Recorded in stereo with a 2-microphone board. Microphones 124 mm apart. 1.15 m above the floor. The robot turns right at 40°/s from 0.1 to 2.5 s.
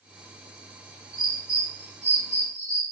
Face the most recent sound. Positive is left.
turn(degrees=-80)